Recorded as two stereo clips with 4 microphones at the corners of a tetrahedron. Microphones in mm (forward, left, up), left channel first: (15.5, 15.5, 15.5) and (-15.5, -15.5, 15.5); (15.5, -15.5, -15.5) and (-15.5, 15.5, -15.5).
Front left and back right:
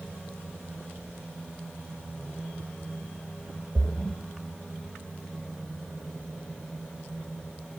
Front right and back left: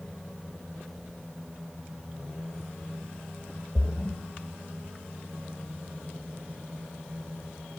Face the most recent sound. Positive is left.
turn(degrees=-10)